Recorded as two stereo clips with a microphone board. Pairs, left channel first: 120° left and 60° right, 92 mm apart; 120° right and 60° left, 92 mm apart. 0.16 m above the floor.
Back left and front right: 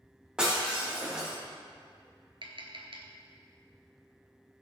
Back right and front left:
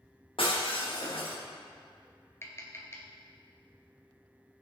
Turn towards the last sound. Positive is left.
turn(degrees=-60)